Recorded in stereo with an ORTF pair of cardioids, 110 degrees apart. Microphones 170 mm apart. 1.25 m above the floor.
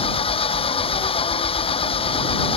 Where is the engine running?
35° left.